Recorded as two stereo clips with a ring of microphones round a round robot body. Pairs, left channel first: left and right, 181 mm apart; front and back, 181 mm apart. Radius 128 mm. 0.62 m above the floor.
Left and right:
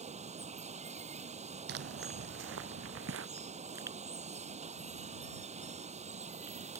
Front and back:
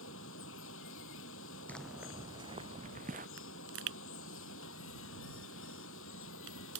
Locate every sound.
0.0 s running water: 35° right
1.7 s footsteps: 85° right; by 3.3 s 120° right
3.4 s a pop: 170° right